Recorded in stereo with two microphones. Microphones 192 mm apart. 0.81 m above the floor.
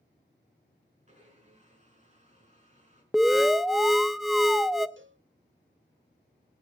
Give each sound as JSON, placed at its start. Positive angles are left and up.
{"t": 1.1, "sound": "a blender", "side_deg": -40, "distance_m": 4.5}
{"t": 3.1, "sound": "an alarm", "side_deg": 0, "distance_m": 0.7}
{"t": 5.0, "sound": "a cowbell", "side_deg": -80, "distance_m": 1.1}